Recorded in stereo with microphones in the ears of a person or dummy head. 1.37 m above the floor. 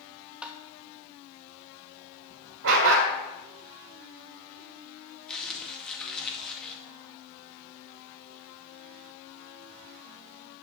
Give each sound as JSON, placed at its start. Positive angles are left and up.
{"t": 0.4, "sound": "tapping", "side_deg": -5, "distance_m": 0.9}
{"t": 2.6, "sound": "a dog barking", "side_deg": -65, "distance_m": 2.5}
{"t": 5.3, "sound": "crumpling", "side_deg": 5, "distance_m": 2.0}